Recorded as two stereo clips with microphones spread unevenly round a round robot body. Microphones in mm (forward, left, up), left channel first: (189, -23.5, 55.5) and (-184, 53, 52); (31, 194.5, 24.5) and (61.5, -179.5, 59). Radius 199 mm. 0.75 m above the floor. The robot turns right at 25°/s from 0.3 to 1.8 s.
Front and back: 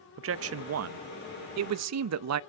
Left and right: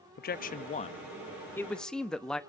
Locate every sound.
0.2 s a man speaking: 140° left, 0.6 m; by 2.4 s 175° left, 0.6 m